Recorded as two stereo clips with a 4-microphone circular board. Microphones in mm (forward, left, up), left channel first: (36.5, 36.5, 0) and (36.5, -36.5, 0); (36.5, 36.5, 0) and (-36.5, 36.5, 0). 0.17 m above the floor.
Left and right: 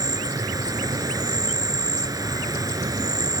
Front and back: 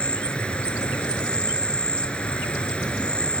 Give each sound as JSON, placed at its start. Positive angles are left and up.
{"t": 0.0, "sound": "an insect", "azimuth_deg": -70, "distance_m": 1.3}